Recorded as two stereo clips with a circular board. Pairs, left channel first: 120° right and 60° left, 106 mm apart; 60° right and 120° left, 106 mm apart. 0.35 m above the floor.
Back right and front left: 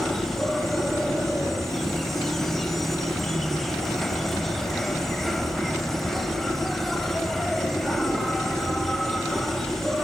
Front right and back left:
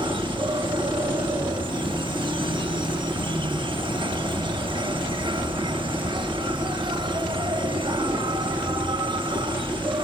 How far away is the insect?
About 0.7 m.